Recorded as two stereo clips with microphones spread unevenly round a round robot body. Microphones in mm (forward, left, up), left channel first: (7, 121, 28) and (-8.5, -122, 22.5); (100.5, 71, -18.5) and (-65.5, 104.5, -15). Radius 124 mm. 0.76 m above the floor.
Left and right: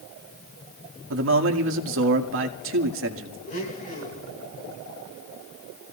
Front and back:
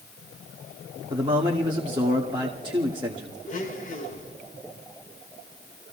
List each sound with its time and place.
1.1 s a man speaking: 120° right, 1.8 m
3.5 s a blender: 25° left, 5.5 m